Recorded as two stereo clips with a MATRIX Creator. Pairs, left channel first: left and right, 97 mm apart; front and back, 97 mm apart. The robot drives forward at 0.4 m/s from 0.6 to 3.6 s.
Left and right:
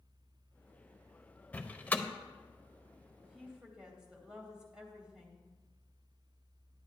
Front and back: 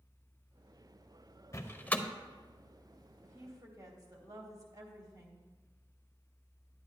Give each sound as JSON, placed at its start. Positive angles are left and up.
{"t": 1.5, "sound": "a door slam", "azimuth_deg": 25, "distance_m": 0.6}
{"t": 3.2, "sound": "a woman speaking", "azimuth_deg": -165, "distance_m": 1.1}